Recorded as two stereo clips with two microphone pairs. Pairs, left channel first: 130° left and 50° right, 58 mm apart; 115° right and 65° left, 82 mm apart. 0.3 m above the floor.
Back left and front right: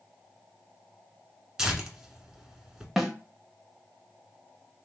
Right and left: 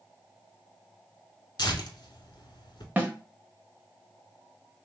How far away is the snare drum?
About 0.7 m.